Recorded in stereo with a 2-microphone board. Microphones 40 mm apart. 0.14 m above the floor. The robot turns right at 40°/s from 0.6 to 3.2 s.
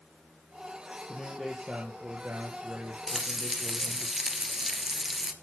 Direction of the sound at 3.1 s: 5° right (ahead or behind).